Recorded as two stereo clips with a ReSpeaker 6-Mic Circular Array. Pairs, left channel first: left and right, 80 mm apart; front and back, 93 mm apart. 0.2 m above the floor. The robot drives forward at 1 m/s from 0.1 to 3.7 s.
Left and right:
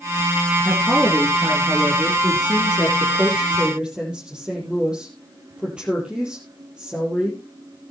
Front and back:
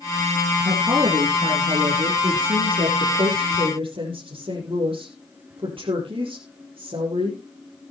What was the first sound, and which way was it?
A woman speaking, 150° right.